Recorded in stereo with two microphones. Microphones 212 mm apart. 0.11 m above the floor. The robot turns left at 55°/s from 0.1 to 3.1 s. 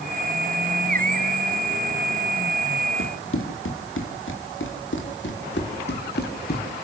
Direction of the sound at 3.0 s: 90° left.